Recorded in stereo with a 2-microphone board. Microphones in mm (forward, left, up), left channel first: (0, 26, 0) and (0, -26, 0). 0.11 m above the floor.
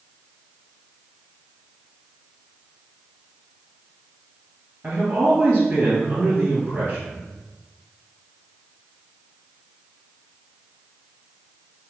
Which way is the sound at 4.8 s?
30° right (ahead or behind).